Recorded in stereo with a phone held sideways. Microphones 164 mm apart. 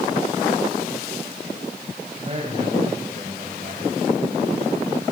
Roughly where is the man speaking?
Right.